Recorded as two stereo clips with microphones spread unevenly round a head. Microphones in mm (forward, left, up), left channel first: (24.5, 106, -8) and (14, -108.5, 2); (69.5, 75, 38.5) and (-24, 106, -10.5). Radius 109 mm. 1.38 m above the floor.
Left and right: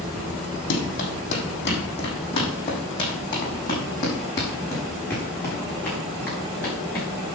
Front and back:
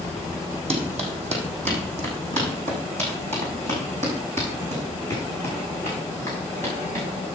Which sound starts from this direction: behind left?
Running footsteps, at 0.7 s.